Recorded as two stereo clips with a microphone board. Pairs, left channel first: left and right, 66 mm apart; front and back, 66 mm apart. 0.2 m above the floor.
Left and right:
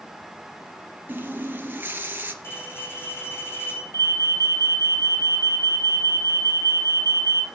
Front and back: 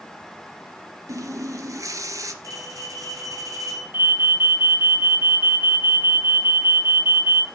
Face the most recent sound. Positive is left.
turn(degrees=125)